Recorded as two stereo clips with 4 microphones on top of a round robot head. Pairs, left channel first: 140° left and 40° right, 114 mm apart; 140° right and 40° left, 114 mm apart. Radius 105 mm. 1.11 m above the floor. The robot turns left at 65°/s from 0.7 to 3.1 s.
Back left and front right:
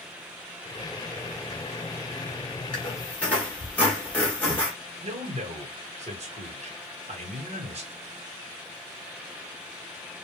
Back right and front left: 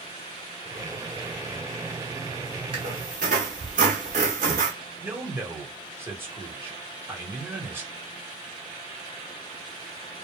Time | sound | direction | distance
2.7 | a squeak | 85° left | 0.9 m
5.0 | a man speaking | 30° right | 1.4 m